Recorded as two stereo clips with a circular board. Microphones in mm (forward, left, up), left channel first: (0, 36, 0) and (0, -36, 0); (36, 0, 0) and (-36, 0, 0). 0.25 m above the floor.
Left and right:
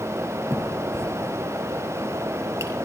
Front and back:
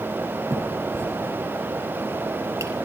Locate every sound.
0.5 s a finger snap: 135° right, 5.5 m